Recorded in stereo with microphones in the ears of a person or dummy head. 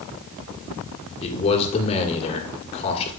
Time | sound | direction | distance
1.2 | a man speaking | 35° left (ahead or behind) | 1.9 m